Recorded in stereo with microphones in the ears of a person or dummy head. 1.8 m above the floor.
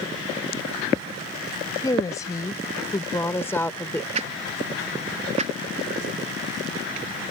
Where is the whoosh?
40° right (ahead or behind).